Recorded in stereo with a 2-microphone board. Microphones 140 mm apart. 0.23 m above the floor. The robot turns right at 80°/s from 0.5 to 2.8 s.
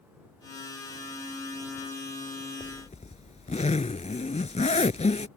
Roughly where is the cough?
I don't hear a cough.